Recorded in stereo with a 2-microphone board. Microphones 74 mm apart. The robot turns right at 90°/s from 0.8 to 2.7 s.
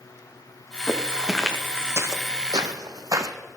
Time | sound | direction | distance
0.9 | footsteps | 35° left (ahead or behind) | 1.8 m